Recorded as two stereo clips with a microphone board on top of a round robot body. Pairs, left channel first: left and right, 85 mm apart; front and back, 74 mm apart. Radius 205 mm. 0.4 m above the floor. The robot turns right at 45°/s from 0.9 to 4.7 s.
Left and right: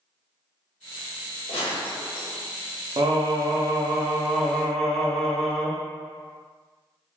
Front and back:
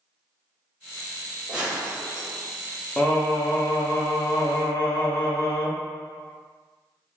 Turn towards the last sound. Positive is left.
turn(degrees=5)